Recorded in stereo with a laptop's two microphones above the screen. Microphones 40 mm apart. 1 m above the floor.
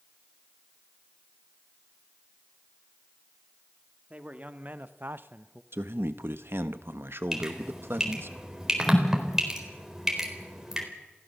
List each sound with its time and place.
4.1 s a man speaking: 35° right (ahead or behind), 2 m; by 5.6 s 30° right (ahead or behind), 0.7 m
5.7 s a man speaking: 70° right (ahead or behind), 1.1 m
7.3 s dripping: 10° right (ahead or behind), 4 m